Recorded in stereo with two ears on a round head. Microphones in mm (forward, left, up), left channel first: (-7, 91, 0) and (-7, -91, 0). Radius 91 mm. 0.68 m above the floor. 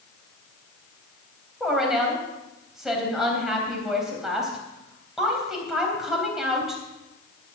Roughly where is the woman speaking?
Centre.